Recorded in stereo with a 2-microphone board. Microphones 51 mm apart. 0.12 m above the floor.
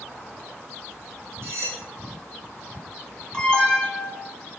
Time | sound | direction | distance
1.4 | cutlery clinking | 65° right (ahead or behind) | 1.8 m
3.3 | an alarm | 20° left (ahead or behind) | 1.1 m